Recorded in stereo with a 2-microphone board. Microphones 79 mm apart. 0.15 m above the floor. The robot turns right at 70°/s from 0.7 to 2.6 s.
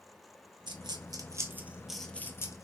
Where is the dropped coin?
80° right, 0.6 m; by 2.6 s 45° left (ahead or behind), 0.6 m.